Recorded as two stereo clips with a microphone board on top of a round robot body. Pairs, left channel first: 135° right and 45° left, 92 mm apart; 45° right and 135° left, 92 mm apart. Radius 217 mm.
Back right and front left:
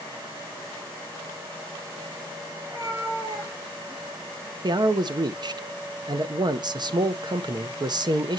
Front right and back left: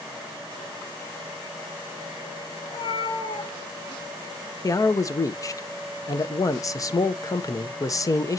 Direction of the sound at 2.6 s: 20° right.